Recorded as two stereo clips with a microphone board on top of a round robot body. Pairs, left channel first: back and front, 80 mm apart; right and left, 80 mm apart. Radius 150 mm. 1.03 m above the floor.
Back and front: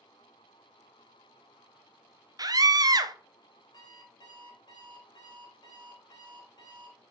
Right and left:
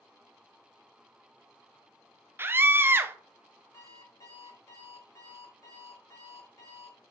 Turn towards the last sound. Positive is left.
turn(degrees=-140)